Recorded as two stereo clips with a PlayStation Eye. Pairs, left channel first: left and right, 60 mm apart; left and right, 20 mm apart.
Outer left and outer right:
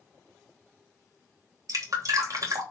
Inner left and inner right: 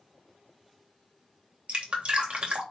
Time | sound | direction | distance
1.7 | dripping | 60° right (ahead or behind) | 3 m